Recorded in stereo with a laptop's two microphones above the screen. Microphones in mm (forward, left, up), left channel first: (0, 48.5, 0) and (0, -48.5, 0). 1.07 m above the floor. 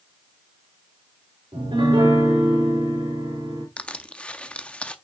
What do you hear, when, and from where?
1.5 s a piano: 60° right (ahead or behind), 3 m
3.8 s crushing: 10° left (ahead or behind), 0.6 m